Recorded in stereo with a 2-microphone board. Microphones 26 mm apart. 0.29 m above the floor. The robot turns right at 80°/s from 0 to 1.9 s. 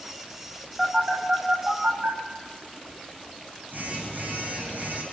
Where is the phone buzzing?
10° right (ahead or behind), 8 m; by 5.0 s 80° right, 8 m.